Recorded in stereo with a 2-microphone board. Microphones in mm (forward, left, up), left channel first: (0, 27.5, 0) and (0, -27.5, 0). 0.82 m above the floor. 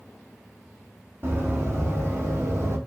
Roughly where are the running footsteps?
Right.